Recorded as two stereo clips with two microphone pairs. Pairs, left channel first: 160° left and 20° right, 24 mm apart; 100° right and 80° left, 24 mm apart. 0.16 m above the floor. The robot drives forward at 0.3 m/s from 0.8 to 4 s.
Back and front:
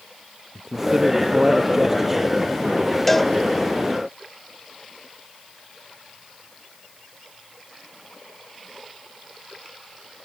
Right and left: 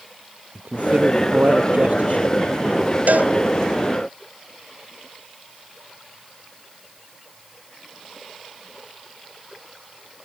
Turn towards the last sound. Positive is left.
turn(degrees=80)